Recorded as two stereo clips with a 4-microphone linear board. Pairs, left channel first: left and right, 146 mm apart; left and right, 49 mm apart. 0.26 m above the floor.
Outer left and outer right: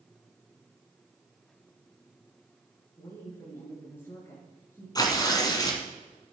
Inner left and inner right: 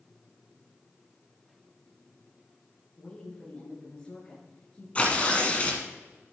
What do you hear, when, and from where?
3.0 s a woman speaking: 15° left (ahead or behind), 3.5 m
5.0 s tearing paper: 25° left (ahead or behind), 1.6 m